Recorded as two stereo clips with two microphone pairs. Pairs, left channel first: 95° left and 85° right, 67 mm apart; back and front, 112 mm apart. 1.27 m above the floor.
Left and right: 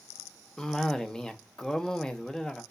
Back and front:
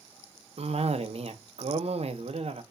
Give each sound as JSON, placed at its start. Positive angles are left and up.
{"t": 0.6, "sound": "a cough", "azimuth_deg": 10, "distance_m": 0.7}